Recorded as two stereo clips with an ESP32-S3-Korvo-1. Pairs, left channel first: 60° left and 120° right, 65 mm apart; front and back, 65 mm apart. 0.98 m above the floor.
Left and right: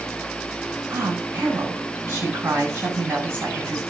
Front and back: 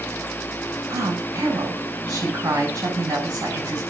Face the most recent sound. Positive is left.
turn(degrees=-175)